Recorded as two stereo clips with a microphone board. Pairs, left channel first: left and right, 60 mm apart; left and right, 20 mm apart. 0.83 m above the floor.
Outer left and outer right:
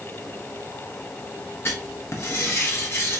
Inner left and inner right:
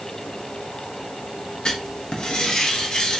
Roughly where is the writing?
Left.